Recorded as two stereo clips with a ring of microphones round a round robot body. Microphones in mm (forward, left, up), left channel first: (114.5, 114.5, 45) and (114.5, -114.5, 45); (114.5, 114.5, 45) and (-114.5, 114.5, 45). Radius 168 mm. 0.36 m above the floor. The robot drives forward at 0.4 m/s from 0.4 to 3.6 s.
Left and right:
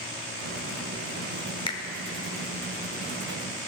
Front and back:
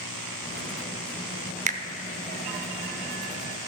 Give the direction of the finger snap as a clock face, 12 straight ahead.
7 o'clock.